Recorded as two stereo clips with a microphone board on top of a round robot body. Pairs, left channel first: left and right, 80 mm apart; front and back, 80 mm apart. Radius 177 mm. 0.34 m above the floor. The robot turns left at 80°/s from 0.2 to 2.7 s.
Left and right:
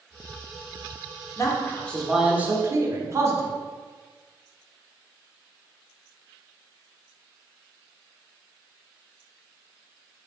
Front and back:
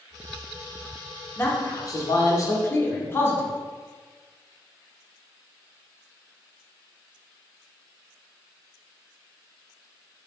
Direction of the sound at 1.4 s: 55° left.